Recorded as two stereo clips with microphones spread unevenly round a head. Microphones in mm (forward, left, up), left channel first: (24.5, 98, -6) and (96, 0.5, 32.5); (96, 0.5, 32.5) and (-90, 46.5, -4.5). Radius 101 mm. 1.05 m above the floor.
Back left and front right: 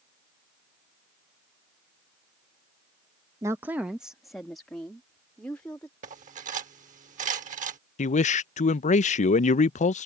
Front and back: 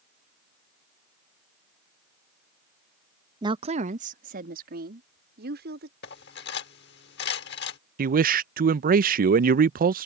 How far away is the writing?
I don't hear writing.